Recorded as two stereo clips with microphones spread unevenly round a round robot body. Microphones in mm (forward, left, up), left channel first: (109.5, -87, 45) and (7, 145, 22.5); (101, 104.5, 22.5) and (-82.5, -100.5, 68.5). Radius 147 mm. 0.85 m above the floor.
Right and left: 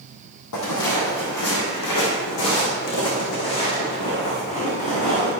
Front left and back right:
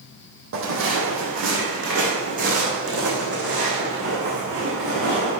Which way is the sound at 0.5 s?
95° right.